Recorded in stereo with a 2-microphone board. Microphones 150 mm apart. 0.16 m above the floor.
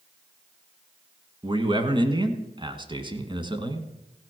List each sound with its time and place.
1.4 s a man speaking: 35° right (ahead or behind), 1.5 m